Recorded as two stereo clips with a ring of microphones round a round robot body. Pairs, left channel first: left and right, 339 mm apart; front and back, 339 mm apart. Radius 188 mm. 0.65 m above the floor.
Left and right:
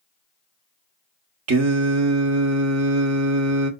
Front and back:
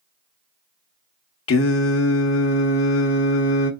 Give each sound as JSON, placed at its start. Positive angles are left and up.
{"t": 1.5, "sound": "singing", "azimuth_deg": -50, "distance_m": 0.8}